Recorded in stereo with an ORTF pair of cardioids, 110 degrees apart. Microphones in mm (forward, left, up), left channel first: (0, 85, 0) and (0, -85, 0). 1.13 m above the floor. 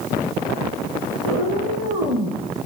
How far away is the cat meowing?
About 3 m.